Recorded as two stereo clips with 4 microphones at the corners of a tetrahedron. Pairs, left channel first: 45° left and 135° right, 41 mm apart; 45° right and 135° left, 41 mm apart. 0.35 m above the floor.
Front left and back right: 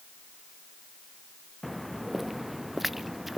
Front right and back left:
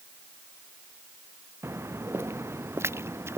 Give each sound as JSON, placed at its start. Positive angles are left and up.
{"t": 1.6, "sound": "footsteps", "azimuth_deg": 135}